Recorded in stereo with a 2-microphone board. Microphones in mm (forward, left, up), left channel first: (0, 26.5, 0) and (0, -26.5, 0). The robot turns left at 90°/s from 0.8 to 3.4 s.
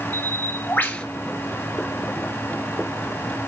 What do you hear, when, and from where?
0.1 s a bird: 35° left (ahead or behind), 1.5 m; by 1.1 s 20° left (ahead or behind), 1.5 m